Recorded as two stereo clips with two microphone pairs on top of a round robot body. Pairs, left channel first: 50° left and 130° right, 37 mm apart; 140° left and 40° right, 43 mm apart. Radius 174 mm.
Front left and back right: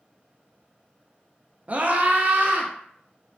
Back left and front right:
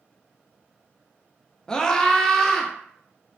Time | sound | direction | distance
1.7 | a scream | 160° right | 0.7 m